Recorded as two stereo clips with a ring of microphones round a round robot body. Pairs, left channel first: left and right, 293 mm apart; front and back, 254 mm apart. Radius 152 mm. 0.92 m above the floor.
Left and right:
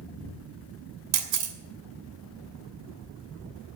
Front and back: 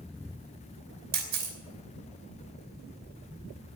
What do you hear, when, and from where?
1.1 s a camera shutter: 120° right, 2.5 m